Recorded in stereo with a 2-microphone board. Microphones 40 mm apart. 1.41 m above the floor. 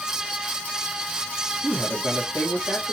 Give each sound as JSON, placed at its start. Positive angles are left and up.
{"t": 1.6, "sound": "a man speaking", "side_deg": 30, "distance_m": 1.8}